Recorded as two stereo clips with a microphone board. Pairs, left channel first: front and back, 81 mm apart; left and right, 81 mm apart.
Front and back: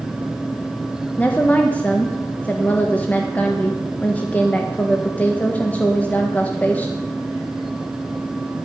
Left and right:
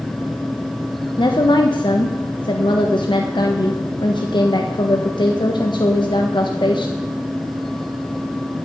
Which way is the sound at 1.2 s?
70° left.